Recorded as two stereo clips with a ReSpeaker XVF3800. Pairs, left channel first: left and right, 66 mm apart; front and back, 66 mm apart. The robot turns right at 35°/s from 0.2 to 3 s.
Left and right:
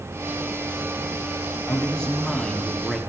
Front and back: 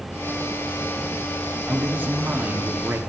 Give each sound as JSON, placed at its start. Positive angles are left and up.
{"t": 1.7, "sound": "a man speaking", "azimuth_deg": 140, "distance_m": 1.2}